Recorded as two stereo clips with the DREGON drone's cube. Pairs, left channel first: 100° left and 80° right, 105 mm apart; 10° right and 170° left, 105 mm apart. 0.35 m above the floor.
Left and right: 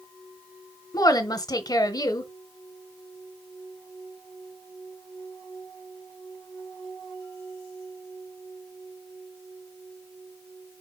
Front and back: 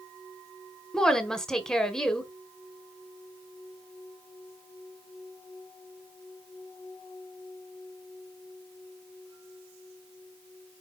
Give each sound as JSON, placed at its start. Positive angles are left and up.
{"t": 0.9, "sound": "a woman speaking", "azimuth_deg": 70, "distance_m": 1.2}